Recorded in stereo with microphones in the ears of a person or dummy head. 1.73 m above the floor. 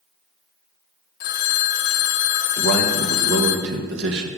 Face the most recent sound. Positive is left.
turn(degrees=-60)  # may be behind; listen again after turning